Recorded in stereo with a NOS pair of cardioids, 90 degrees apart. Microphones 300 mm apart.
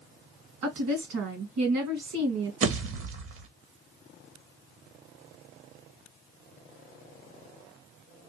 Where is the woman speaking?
65° right, 1.9 m.